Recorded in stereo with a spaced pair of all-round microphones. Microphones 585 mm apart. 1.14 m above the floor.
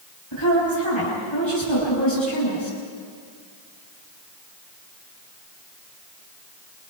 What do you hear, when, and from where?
0.3 s a woman speaking: 50° left (ahead or behind), 7.5 m